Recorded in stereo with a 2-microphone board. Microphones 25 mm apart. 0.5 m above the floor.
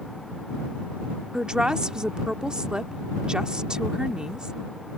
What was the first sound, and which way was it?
A woman speaking, 35° right (ahead or behind).